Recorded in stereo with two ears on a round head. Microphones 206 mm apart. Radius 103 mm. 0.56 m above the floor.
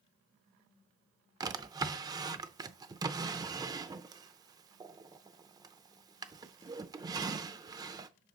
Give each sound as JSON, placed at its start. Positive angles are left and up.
{"t": 1.4, "sound": "a drawer", "side_deg": -15, "distance_m": 0.5}